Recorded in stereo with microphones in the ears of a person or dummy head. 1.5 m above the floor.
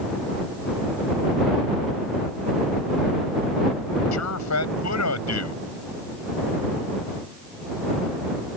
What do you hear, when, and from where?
4.1 s a man speaking: 90° left